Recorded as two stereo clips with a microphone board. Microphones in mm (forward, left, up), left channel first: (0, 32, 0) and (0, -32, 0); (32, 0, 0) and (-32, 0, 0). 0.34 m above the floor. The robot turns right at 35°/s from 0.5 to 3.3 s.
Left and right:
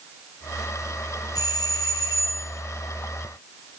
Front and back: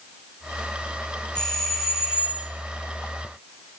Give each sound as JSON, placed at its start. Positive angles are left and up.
{"t": 1.4, "sound": "a doorbell", "azimuth_deg": 75, "distance_m": 4.0}